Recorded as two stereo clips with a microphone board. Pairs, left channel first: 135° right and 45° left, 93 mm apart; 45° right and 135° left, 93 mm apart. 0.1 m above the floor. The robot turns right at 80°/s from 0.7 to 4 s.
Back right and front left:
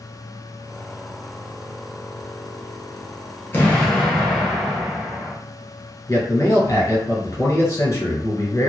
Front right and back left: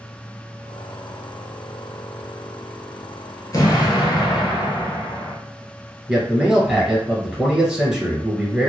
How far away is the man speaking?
About 1.3 m.